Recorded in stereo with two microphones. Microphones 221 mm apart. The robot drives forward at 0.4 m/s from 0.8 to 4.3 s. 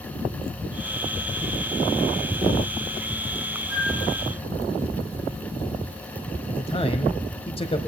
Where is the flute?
65° left (ahead or behind), 4.5 m.